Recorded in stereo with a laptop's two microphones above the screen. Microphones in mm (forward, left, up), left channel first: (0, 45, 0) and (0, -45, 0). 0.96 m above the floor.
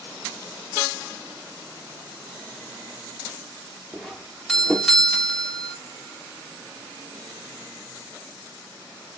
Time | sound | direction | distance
3.9 | a doorbell | 5° left (ahead or behind) | 0.7 m